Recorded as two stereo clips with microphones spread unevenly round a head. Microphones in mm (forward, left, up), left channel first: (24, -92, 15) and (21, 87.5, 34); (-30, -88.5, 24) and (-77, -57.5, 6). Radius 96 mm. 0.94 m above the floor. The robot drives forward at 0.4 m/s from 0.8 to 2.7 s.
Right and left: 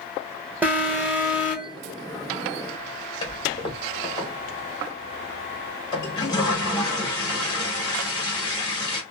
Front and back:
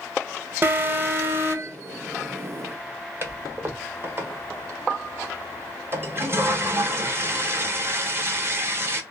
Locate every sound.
0.6 s an alarm: 175° left, 1.0 m; by 1.8 s straight behind, 1.4 m
3.2 s a toilet flushing: 160° right, 0.9 m